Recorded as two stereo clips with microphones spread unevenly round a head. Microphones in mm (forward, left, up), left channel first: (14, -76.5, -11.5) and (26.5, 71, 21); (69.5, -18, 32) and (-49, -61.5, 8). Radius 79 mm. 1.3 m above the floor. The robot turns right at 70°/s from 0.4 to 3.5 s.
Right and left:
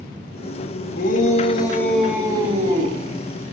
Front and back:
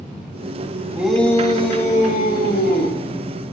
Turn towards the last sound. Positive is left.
turn(degrees=100)